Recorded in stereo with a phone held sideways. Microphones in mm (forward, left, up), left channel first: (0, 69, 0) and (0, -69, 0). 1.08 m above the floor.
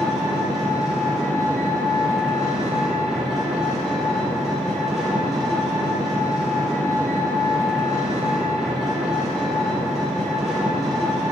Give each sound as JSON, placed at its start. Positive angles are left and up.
{"t": 0.0, "sound": "an engine running", "side_deg": -5, "distance_m": 2.5}